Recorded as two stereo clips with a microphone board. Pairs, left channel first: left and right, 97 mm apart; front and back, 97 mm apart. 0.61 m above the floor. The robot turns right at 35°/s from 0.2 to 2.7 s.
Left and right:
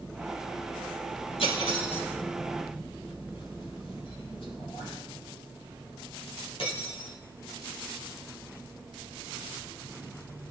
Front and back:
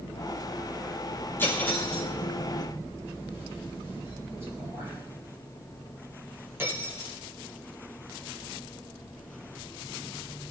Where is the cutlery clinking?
70° left, 9 m; by 7.1 s 115° left, 9 m.